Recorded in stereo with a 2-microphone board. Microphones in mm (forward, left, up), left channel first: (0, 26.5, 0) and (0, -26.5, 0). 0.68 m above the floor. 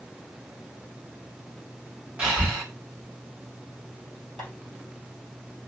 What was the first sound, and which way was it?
Breathing, 20° right (ahead or behind).